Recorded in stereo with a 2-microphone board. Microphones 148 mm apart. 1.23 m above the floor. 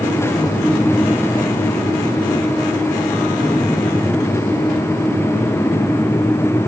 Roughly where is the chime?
I don't hear a chime.